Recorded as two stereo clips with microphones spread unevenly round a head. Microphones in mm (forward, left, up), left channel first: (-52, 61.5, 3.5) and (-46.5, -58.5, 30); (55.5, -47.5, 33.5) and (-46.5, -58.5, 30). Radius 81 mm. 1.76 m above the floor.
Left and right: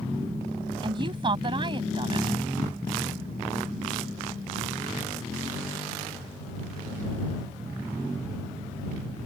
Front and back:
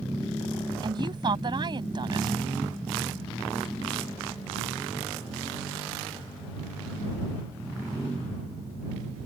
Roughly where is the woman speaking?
Behind right.